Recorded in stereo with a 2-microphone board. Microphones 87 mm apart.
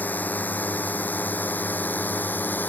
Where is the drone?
20° left (ahead or behind).